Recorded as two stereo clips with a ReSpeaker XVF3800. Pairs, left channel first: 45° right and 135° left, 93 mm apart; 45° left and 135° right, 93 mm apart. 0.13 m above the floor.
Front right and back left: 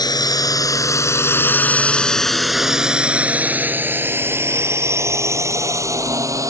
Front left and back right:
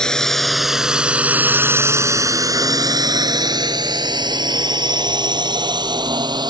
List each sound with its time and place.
0.0 s a drone: 35° right; by 6.5 s 170° right